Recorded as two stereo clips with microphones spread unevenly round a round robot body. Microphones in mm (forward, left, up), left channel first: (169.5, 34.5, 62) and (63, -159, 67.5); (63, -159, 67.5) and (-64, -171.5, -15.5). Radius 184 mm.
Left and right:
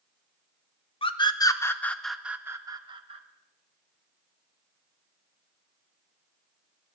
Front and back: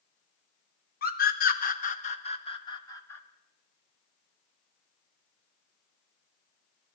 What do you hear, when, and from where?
1.0 s a scream: 10° left, 1.2 m; by 3.2 s 130° right, 1.1 m